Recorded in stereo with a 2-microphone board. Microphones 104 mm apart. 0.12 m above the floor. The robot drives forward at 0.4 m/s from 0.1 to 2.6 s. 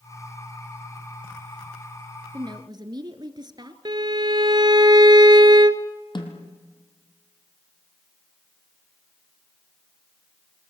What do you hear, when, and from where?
2.3 s a woman speaking: 45° right (ahead or behind), 1.5 m
3.9 s a violin: 45° right (ahead or behind), 0.8 m
6.2 s a snare drum: 50° left (ahead or behind), 2.5 m